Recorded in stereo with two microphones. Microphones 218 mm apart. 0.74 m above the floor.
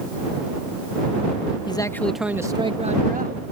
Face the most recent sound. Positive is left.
turn(degrees=-45)  # may be behind; listen again after turning